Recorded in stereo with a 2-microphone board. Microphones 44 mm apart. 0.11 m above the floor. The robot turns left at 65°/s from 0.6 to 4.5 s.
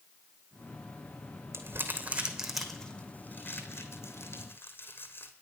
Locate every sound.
1.5 s crumpling: 70° right (ahead or behind), 1.2 m; by 5.3 s 55° left (ahead or behind), 1.2 m